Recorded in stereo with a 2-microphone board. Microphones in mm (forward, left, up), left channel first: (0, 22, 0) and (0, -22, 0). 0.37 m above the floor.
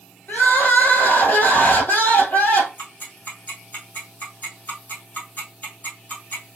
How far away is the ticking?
About 2.5 m.